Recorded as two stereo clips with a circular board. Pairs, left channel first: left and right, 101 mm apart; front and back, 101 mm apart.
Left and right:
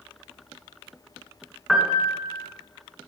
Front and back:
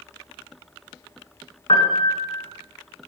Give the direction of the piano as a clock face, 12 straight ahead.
12 o'clock.